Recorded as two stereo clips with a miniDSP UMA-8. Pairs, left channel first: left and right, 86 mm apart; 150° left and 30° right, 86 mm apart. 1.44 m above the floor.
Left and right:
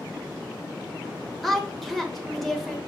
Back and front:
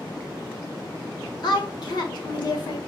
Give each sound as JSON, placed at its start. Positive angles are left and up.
{"t": 1.4, "sound": "a woman speaking", "azimuth_deg": 180, "distance_m": 1.2}